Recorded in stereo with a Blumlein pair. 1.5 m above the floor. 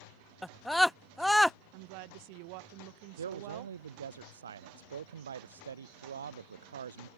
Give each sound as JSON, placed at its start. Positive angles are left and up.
{"t": 0.4, "sound": "a scream", "azimuth_deg": 0}
{"t": 1.7, "sound": "a woman speaking", "azimuth_deg": -45}
{"t": 3.2, "sound": "a man speaking", "azimuth_deg": -65}